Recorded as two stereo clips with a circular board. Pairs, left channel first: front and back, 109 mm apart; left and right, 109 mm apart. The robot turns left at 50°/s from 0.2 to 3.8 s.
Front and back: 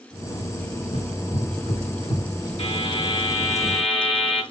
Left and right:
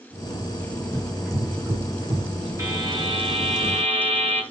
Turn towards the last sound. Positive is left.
turn(degrees=-85)